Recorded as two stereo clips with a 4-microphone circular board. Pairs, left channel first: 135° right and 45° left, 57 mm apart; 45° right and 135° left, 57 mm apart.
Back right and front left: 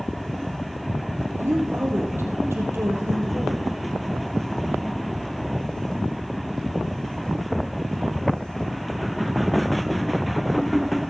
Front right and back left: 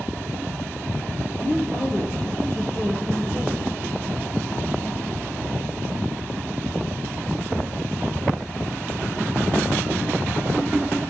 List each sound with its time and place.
1.4 s a woman speaking: 5° left, 3.5 m